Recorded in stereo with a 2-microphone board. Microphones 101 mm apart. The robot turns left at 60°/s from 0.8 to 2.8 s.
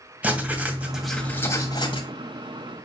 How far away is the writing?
About 2.5 m.